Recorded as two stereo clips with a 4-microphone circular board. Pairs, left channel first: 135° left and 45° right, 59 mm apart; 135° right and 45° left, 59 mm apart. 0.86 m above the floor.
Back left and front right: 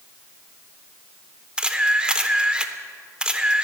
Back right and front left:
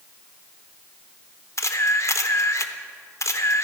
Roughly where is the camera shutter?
Behind right.